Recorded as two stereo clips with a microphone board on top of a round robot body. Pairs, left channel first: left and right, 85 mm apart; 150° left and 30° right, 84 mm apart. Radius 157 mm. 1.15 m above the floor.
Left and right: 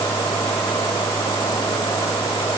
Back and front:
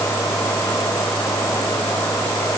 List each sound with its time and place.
Only background noise.